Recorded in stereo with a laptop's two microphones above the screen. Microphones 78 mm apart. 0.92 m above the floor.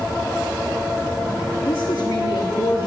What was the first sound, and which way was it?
A woman speaking, 70° left (ahead or behind).